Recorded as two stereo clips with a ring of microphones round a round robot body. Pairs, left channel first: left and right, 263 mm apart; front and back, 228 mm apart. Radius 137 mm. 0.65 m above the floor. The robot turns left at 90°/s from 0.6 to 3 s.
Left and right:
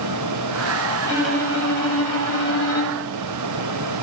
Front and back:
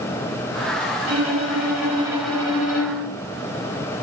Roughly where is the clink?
I don't hear a clink.